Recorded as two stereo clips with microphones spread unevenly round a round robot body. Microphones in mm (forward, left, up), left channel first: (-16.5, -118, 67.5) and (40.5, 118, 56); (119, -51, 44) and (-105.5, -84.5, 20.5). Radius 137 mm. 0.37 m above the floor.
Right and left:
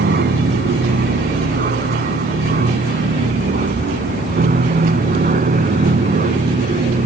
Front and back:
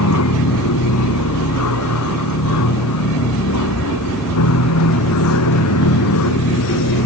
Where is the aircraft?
30° left; by 7.0 s 15° left.